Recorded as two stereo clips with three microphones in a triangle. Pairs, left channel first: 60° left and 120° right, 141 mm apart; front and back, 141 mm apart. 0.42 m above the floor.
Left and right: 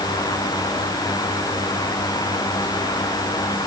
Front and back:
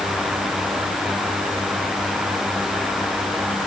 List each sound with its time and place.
Only background noise.